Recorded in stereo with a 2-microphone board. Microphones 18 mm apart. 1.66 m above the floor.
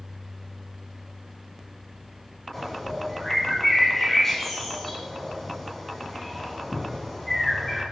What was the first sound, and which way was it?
A bird, 15° left (ahead or behind).